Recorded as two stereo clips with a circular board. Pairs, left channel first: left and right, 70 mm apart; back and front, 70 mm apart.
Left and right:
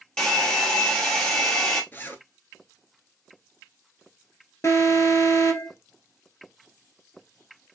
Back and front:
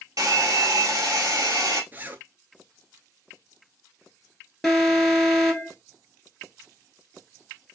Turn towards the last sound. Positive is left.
turn(degrees=90)